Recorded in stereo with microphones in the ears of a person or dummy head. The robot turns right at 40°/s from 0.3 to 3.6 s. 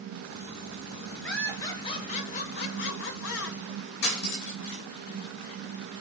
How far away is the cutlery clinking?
About 3.5 m.